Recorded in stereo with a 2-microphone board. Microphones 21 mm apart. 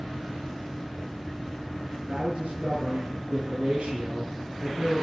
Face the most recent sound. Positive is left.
turn(degrees=-70)  # may be behind; listen again after turning